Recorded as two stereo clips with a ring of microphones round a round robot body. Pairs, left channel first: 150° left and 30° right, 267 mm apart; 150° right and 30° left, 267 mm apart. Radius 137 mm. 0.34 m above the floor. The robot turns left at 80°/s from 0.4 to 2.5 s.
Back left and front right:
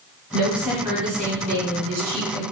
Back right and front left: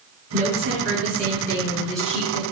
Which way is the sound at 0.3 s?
60° left.